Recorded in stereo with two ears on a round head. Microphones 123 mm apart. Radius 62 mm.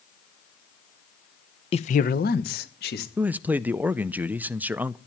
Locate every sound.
1.7 s a man speaking: 40° left (ahead or behind), 0.7 m; by 3.1 s 80° left, 2.5 m
3.2 s a man speaking: 10° right (ahead or behind), 0.5 m